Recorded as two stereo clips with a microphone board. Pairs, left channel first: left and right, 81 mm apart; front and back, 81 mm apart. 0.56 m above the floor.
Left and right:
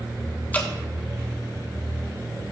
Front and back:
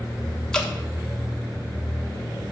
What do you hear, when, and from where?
0.5 s dripping: 70° left, 1.2 m